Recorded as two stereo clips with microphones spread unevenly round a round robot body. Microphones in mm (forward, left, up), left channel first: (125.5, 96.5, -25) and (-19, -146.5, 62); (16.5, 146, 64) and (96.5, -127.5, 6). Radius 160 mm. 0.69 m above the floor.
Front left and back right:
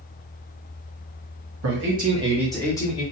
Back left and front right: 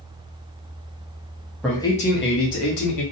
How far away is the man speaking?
About 1.0 m.